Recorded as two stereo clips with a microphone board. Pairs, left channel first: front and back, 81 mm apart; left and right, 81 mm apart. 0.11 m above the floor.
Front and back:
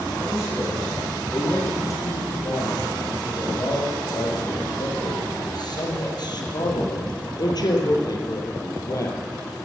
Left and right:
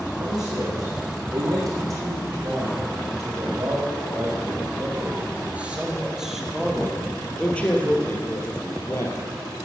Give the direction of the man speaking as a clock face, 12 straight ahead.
2 o'clock.